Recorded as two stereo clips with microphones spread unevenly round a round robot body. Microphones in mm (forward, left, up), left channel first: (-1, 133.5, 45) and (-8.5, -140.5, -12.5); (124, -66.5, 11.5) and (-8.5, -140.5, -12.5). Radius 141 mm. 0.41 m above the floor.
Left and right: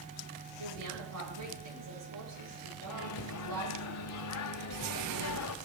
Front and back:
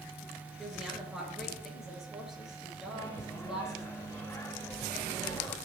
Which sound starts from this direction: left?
A microwave, at 2.9 s.